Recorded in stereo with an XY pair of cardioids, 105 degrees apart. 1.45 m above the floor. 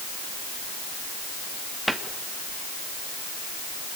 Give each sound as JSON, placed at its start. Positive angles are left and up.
{"t": 1.9, "sound": "a cupboard door", "azimuth_deg": 0, "distance_m": 2.5}